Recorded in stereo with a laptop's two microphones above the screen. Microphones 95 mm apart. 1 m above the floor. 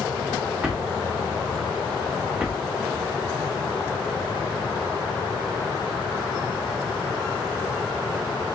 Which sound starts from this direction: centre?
A drawer, at 0.6 s.